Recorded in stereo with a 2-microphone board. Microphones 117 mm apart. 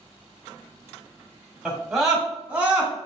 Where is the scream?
5° left (ahead or behind), 1.0 m; by 2.9 s 15° right (ahead or behind), 1.6 m.